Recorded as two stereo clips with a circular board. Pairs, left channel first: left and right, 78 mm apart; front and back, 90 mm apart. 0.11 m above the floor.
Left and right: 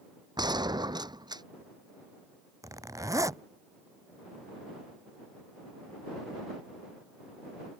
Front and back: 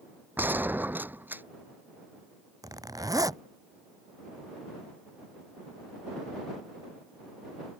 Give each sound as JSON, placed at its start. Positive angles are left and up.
{"t": 0.4, "sound": "a gunshot", "azimuth_deg": -110}
{"t": 2.6, "sound": "a zipper", "azimuth_deg": -135}